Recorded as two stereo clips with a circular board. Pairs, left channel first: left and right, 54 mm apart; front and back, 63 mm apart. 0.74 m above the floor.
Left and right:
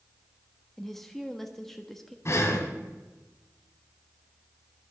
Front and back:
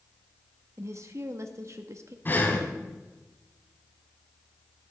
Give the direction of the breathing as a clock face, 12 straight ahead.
10 o'clock.